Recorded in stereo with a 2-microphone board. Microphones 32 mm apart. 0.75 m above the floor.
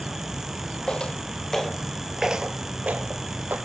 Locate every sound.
0.9 s footsteps: 30° left (ahead or behind), 1.5 m; by 3.6 s 60° right (ahead or behind), 1.5 m